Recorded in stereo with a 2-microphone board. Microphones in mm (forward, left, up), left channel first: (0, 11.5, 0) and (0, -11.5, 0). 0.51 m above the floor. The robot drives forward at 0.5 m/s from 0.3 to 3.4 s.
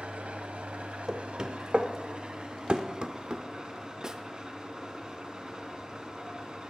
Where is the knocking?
35° right (ahead or behind), 1.1 m; by 3.4 s 45° right (ahead or behind), 0.9 m.